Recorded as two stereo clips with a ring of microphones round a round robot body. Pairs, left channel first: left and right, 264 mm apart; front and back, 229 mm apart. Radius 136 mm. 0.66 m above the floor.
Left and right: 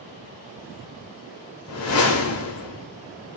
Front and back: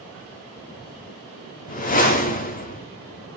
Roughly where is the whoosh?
Ahead left.